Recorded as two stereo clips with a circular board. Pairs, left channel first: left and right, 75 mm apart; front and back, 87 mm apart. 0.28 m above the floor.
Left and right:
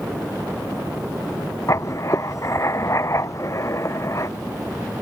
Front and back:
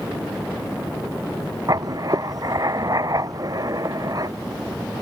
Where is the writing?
135° left.